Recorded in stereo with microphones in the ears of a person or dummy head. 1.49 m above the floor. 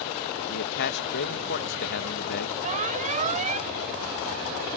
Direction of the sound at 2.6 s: 35° right (ahead or behind).